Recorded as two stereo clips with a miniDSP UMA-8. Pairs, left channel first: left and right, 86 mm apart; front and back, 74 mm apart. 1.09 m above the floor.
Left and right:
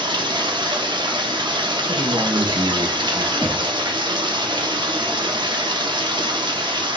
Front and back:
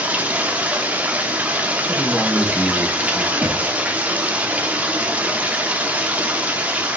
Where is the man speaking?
85° right, 1.3 m.